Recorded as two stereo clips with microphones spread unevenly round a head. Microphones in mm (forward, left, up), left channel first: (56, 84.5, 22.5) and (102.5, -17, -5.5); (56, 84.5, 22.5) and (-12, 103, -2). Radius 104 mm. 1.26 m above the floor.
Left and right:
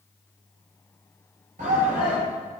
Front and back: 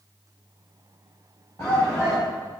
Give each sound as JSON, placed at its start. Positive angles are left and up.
{"t": 1.6, "sound": "a shout", "azimuth_deg": -85, "distance_m": 5.0}